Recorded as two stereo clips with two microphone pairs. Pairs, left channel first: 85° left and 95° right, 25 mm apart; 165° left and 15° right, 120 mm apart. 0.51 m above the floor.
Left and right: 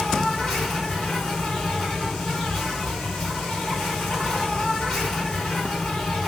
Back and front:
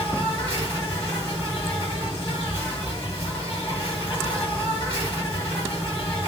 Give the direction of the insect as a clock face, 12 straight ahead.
8 o'clock.